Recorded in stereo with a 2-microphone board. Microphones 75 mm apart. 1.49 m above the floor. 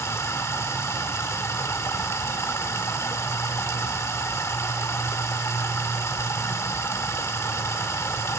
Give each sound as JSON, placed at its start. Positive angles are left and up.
{"t": 0.0, "sound": "running water", "side_deg": 40, "distance_m": 1.6}